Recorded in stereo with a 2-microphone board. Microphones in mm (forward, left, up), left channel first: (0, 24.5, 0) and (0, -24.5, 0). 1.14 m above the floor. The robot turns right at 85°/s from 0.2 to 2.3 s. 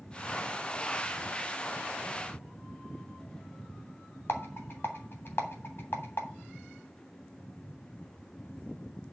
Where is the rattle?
50° left (ahead or behind), 2.5 m.